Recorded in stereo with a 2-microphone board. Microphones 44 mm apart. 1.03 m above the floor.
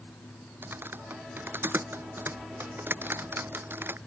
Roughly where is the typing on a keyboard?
Right.